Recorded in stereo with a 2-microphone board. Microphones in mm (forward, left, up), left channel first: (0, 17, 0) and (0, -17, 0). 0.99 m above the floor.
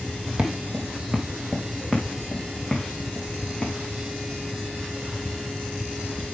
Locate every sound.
0.4 s footsteps: 50° right (ahead or behind), 1.9 m; by 3.7 s 5° left (ahead or behind), 4 m